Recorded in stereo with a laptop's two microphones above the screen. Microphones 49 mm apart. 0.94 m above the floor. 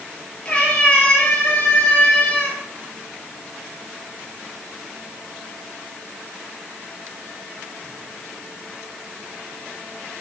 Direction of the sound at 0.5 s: 25° left (ahead or behind).